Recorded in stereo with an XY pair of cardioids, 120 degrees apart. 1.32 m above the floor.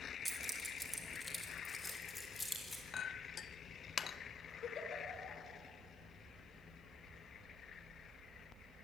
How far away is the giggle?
About 5.5 m.